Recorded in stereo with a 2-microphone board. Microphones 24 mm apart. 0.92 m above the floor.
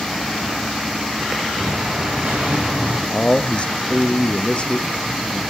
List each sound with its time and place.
1.6 s an explosion: 60° right (ahead or behind), 6.5 m
3.1 s a man speaking: 45° left (ahead or behind), 1.0 m